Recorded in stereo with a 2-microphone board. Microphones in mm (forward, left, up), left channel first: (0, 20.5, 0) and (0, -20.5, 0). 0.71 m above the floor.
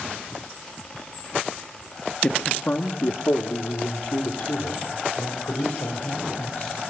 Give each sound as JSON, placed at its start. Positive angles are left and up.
{"t": 2.2, "sound": "a man speaking", "side_deg": 30, "distance_m": 0.6}